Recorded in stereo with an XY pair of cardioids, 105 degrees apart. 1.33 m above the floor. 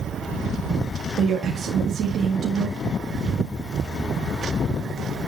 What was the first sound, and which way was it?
A woman speaking, 60° right.